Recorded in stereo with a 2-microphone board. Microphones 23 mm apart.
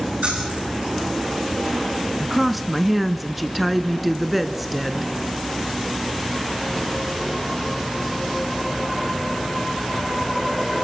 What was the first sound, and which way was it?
Keys jangling, 85° right.